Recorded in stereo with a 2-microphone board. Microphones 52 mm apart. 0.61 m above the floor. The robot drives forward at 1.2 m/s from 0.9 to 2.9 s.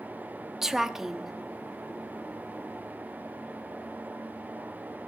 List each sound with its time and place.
0.6 s a woman speaking: 5° right (ahead or behind), 0.8 m